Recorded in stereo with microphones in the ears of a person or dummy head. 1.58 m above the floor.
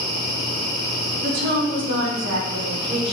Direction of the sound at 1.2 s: 45° right (ahead or behind).